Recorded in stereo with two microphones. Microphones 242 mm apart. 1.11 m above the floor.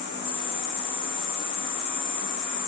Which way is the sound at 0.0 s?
50° right (ahead or behind).